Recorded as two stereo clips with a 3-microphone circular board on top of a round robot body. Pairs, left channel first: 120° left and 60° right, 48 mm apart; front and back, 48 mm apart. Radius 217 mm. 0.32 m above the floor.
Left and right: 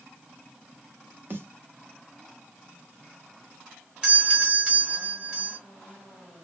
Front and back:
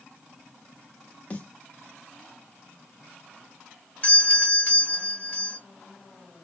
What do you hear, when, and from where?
1.3 s a snare drum: 50° right, 1.2 m
4.0 s a doorbell: 15° right, 2.0 m